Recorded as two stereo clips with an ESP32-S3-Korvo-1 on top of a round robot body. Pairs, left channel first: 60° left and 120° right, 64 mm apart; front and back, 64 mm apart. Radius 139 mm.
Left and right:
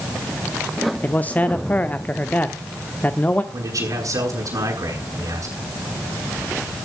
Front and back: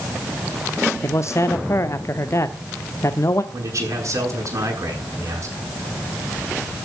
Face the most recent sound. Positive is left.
turn(degrees=-145)